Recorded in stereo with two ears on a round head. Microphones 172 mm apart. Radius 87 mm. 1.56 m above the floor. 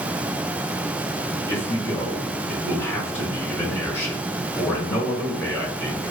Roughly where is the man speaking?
Centre.